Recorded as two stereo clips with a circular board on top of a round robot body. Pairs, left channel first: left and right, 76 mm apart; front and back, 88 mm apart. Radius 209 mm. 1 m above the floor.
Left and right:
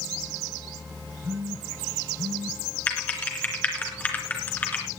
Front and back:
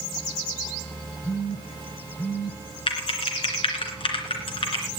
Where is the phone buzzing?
30° right, 0.9 m.